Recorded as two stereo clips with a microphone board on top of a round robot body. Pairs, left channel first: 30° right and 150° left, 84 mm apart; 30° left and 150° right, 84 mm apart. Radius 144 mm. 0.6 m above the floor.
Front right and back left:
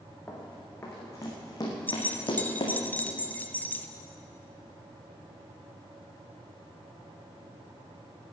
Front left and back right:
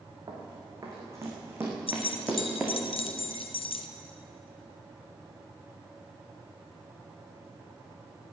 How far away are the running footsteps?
About 3.5 m.